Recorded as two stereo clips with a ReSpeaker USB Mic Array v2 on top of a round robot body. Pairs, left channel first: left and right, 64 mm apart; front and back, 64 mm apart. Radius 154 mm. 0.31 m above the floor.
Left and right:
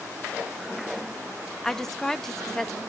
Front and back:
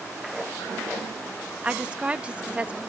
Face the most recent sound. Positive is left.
turn(degrees=160)